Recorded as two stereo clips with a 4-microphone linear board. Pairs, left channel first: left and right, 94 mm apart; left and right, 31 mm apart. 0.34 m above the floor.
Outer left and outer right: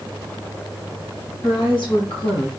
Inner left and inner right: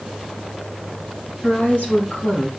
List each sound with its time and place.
1.4 s a woman speaking: 60° left (ahead or behind), 3 m